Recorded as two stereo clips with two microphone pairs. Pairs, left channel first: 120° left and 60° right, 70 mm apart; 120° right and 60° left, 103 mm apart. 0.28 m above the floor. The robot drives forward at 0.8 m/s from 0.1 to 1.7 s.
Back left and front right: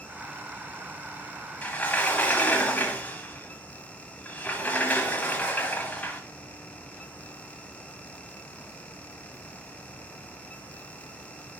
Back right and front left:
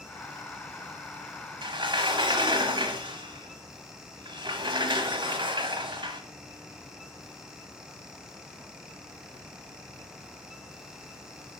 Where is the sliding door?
60° left, 1.2 m; by 6.2 s 65° left, 1.1 m.